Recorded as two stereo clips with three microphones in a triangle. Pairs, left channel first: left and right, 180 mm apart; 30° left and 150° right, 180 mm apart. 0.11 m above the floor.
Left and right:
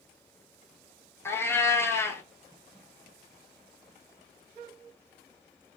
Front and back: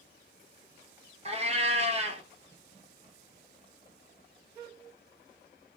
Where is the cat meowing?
165° left, 0.6 m.